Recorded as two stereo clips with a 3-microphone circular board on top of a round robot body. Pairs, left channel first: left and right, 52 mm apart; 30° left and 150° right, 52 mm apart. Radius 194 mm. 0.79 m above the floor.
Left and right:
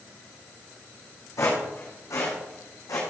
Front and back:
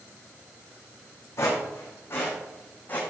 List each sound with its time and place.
1.4 s footsteps: 70° left, 4 m; by 3.0 s 90° left, 3.5 m